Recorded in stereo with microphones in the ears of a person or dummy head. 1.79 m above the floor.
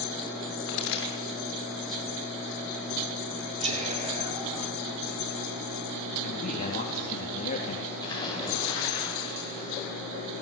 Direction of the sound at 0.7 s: 75° left (ahead or behind).